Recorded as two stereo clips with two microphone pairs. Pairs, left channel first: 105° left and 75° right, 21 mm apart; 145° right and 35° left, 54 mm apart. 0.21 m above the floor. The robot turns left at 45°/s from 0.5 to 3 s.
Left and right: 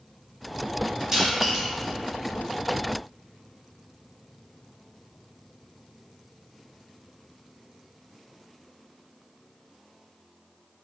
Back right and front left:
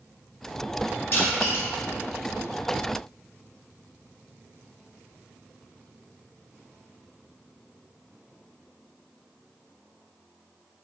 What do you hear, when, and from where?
1.1 s crushing: 120° right, 0.7 m; by 1.6 s 145° right, 0.7 m